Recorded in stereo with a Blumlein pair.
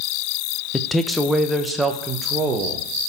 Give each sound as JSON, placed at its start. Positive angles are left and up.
{"t": 0.7, "sound": "a man speaking", "azimuth_deg": 10, "distance_m": 1.0}